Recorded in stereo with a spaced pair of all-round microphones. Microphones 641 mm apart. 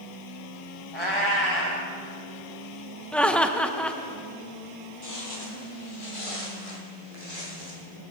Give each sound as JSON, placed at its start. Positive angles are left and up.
{"t": 0.9, "sound": "a cat meowing", "side_deg": 50, "distance_m": 3.0}
{"t": 3.1, "sound": "laughter", "side_deg": 0, "distance_m": 1.0}
{"t": 5.0, "sound": "footsteps", "side_deg": 25, "distance_m": 2.0}